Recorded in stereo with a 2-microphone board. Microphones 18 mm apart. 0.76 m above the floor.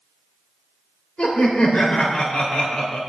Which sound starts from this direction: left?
Laughter, at 1.2 s.